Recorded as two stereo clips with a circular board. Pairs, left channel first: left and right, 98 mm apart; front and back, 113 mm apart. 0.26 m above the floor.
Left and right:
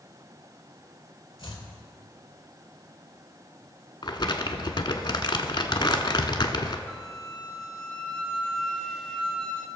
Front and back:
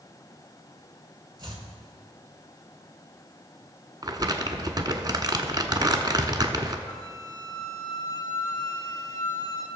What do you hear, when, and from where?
1.4 s chopping: 130° left, 1.8 m
4.0 s crumpling: 130° left, 0.9 m
6.9 s a flute: straight ahead, 1.1 m